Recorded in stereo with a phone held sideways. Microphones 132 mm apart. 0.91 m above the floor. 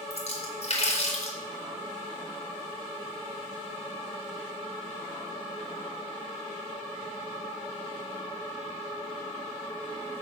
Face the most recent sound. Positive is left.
turn(degrees=55)  # may be behind; listen again after turning